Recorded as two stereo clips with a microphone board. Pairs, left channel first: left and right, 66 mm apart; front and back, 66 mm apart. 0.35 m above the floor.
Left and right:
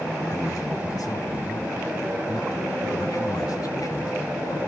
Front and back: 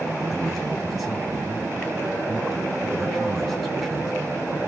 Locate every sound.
0.2 s a man speaking: 90° left, 4 m